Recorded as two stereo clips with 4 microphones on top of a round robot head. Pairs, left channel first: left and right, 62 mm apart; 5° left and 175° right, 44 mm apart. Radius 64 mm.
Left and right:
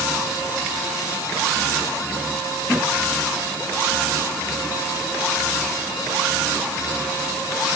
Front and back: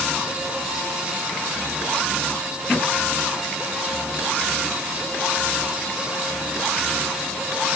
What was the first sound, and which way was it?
Only background noise.